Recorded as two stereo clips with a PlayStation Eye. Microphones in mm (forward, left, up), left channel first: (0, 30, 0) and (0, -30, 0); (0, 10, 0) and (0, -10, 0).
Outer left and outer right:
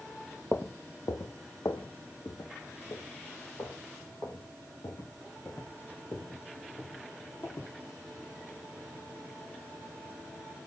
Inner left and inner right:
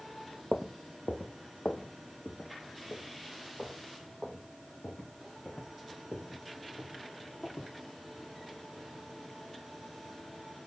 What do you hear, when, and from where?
0.5 s footsteps: 30° left (ahead or behind), 0.8 m; by 7.7 s 55° left (ahead or behind), 4.5 m